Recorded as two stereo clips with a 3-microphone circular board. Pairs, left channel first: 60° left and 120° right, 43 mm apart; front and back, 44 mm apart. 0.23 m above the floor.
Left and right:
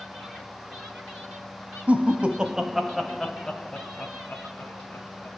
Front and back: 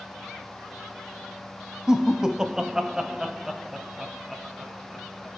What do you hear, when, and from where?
1.9 s laughter: 115° right, 1.2 m; by 5.3 s 95° left, 1.9 m